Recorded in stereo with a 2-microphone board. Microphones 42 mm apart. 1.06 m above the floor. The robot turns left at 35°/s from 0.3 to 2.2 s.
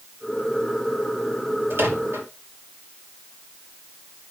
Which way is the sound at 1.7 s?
60° right (ahead or behind).